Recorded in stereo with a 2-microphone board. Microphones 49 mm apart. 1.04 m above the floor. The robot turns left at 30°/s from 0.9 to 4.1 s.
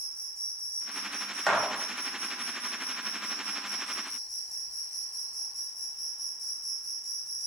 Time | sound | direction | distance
0.0 | an insect | 90° right | 1.1 m
1.5 | a gunshot | 5° left (ahead or behind) | 0.7 m